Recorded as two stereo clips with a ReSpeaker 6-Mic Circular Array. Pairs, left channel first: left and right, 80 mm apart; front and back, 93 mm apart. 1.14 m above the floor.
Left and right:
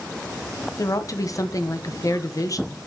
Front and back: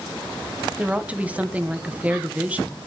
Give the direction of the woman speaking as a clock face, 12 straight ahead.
8 o'clock.